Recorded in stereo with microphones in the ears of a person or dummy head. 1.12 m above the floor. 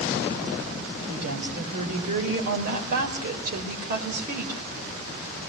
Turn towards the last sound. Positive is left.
turn(degrees=-50)  # may be behind; listen again after turning